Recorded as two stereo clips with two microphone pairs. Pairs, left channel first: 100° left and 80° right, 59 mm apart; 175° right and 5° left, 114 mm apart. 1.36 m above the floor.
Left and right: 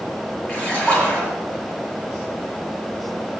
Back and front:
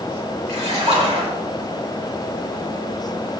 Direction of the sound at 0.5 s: 30° left.